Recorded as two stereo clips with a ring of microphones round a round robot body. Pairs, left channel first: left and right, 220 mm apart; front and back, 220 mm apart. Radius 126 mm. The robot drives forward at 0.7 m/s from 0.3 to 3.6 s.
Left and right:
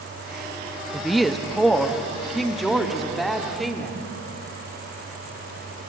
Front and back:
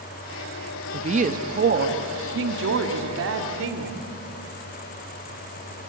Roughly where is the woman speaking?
Behind.